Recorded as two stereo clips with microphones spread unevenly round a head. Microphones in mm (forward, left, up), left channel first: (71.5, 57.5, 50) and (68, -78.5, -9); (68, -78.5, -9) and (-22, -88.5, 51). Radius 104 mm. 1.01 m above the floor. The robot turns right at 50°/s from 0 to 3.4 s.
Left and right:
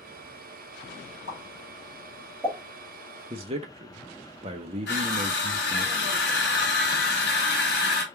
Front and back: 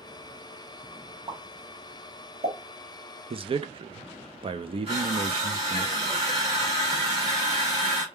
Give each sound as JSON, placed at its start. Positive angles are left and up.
{"t": 1.3, "sound": "a pop", "azimuth_deg": 110, "distance_m": 1.9}
{"t": 3.3, "sound": "a man speaking", "azimuth_deg": -140, "distance_m": 0.6}
{"t": 4.9, "sound": "crushing", "azimuth_deg": 125, "distance_m": 1.7}